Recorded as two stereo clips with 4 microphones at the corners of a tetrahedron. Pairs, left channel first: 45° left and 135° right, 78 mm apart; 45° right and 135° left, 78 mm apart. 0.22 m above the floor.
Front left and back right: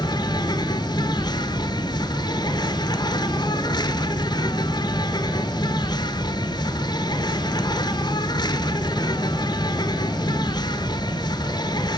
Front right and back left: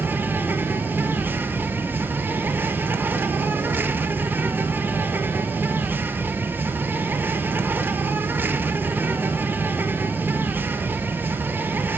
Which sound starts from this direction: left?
An insect, at 0.0 s.